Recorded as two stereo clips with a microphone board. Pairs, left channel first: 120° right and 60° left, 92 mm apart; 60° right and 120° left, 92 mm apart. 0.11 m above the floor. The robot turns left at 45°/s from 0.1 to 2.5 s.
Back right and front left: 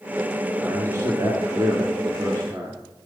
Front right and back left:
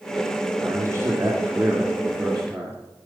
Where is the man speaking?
100° left, 1.9 m; by 2.8 s 15° left, 1.9 m.